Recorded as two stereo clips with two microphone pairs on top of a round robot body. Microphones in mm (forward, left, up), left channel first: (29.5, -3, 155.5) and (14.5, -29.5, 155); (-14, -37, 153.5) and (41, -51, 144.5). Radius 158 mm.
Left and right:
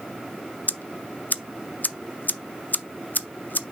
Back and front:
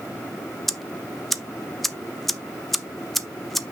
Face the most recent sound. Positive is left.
turn(degrees=75)